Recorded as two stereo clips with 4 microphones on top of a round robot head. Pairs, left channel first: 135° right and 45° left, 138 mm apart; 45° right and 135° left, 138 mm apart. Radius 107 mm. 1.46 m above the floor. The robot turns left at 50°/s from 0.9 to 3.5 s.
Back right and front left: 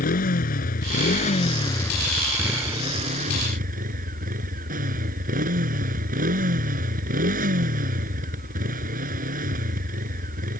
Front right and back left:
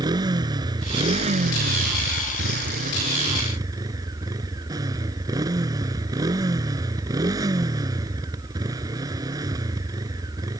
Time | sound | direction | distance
0.0 | a motorcycle | 160° right | ?